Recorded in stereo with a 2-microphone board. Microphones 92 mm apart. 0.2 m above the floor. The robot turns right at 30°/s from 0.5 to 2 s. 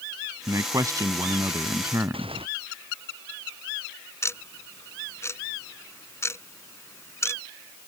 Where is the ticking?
30° left (ahead or behind).